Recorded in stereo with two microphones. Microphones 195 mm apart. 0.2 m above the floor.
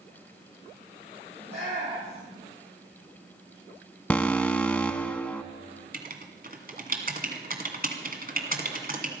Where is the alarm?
5° left (ahead or behind), 0.9 m.